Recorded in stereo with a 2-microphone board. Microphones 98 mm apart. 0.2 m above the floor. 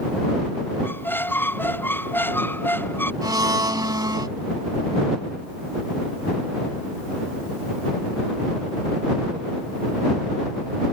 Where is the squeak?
20° left (ahead or behind).